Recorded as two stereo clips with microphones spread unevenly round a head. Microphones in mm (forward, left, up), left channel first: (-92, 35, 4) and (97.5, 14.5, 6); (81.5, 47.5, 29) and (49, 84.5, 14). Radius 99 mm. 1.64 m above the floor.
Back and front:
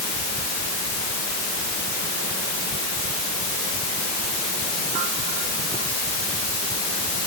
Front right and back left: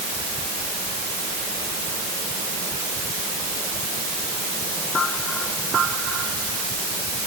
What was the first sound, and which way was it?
Only background noise.